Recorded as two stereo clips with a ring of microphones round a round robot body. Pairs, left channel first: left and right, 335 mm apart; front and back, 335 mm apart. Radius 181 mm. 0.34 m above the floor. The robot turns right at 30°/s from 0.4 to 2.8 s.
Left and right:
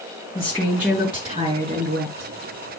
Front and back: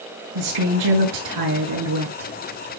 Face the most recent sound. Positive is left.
turn(degrees=-120)